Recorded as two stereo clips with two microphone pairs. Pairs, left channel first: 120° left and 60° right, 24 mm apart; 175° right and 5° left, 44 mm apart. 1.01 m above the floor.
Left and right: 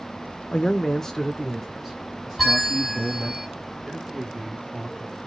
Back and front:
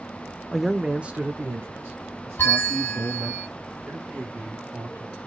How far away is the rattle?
No rattle in this recording.